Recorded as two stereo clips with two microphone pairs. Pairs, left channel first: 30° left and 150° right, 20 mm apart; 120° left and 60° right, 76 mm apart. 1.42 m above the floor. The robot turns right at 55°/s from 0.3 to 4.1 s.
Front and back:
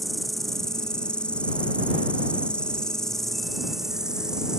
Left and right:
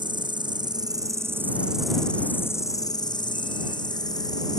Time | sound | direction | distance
0.0 | an insect | 60° right | ?